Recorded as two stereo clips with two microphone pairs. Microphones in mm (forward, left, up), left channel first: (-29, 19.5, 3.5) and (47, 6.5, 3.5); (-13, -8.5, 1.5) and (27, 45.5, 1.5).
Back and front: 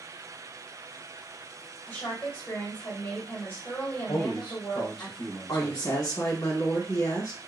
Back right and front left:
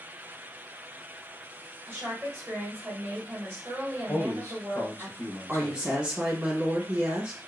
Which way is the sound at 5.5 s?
130° left.